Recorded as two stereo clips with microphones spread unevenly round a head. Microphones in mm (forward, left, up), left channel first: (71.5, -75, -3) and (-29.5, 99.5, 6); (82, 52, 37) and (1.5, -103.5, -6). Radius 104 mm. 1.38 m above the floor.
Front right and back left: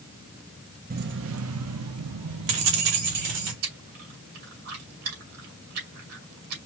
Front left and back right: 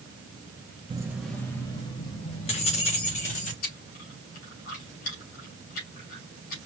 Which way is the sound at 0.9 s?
165° left.